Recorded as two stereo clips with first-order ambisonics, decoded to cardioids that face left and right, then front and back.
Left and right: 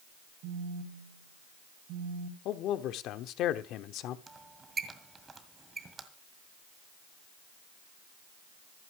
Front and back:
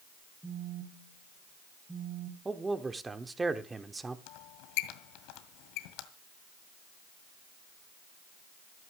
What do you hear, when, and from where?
0.4 s a phone buzzing: 95° right, 1.8 m
2.5 s a man speaking: 105° left, 1.0 m
4.3 s a squeak: 15° right, 1.9 m